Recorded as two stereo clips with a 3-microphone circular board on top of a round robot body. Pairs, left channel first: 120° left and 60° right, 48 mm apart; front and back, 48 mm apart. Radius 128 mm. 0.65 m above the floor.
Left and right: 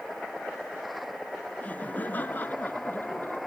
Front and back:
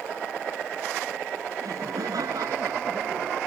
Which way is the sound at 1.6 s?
175° right.